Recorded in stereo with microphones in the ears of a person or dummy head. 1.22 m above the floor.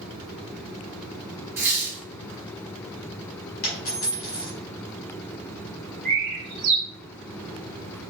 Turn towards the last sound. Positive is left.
turn(degrees=-50)  # may be behind; listen again after turning